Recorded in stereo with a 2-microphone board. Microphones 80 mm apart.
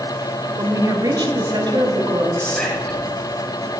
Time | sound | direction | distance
0.6 | a woman speaking | 45° right (ahead or behind) | 1.1 m
2.4 | whispering | 10° left (ahead or behind) | 2 m